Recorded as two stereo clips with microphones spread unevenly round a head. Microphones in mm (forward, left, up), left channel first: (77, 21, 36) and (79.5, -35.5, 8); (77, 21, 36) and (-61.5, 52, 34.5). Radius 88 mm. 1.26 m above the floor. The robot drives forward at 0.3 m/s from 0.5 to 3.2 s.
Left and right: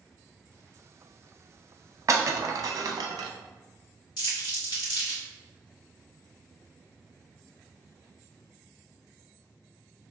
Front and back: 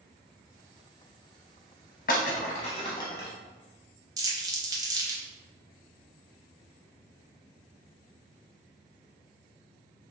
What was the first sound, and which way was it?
Breaking glass, 40° right.